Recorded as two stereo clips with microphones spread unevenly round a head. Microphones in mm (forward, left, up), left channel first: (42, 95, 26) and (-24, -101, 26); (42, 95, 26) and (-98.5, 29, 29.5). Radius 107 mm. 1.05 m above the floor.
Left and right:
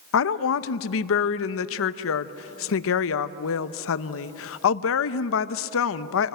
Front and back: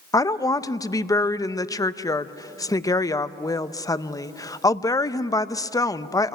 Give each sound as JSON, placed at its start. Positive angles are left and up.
{"t": 0.1, "sound": "a woman speaking", "azimuth_deg": 95, "distance_m": 0.8}